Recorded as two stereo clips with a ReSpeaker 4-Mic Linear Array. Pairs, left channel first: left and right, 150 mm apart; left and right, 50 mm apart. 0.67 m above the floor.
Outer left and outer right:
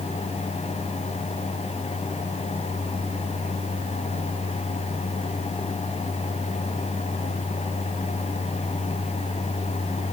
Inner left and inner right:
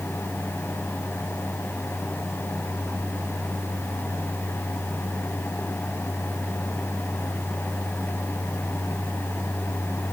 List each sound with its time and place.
Only background noise.